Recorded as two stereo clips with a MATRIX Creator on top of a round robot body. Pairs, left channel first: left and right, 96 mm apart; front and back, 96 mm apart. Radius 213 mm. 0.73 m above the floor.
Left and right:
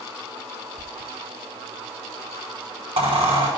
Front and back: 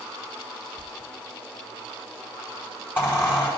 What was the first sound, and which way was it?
A squeak, 70° right.